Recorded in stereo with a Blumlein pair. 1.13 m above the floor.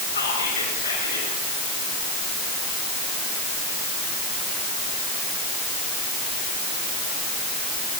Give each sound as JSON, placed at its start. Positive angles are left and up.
{"t": 0.1, "sound": "whispering", "azimuth_deg": 70, "distance_m": 7.0}